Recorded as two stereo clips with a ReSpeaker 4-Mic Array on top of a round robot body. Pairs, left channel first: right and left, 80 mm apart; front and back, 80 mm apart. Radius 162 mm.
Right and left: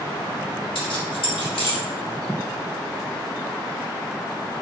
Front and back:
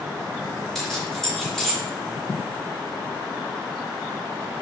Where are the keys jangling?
85° right, 3 m.